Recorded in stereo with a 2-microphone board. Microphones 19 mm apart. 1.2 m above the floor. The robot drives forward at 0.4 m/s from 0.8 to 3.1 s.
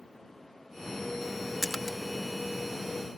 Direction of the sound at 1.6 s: 5° right (ahead or behind).